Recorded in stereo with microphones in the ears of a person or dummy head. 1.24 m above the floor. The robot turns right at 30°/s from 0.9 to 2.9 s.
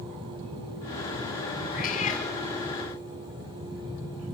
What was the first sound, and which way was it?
A cat meowing, 55° left (ahead or behind).